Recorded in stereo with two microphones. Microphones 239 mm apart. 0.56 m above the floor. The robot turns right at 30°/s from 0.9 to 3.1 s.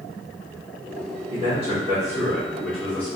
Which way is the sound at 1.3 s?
30° right (ahead or behind).